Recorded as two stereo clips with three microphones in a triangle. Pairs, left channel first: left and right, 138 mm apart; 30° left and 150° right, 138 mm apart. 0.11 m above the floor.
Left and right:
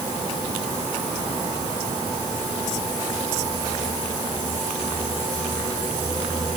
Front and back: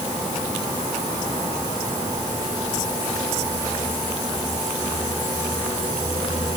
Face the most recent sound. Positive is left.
No sound to turn to.